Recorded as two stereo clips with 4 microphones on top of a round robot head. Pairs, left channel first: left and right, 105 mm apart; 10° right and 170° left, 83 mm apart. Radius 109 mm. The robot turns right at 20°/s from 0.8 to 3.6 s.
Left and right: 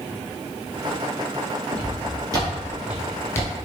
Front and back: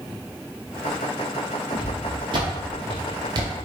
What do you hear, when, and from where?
1.7 s footsteps: 145° right, 1.9 m; by 3.5 s 140° left, 1.0 m